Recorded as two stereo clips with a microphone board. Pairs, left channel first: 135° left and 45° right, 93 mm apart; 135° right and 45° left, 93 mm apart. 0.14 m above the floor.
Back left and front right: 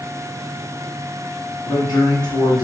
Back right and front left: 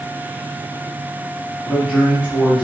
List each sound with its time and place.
1.6 s a man speaking: 130° left, 2.0 m